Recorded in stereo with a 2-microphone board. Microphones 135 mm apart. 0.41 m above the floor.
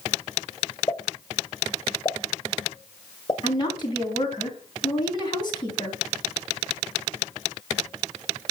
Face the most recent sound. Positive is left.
turn(degrees=35)  # may be behind; listen again after turning